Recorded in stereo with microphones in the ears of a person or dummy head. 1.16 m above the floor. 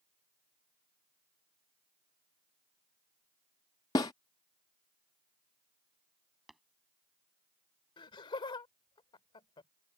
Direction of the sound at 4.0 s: 20° left (ahead or behind).